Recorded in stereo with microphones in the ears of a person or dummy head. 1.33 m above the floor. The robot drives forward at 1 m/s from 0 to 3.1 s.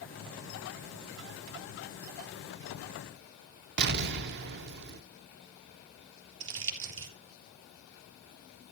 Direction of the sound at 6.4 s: 75° right (ahead or behind).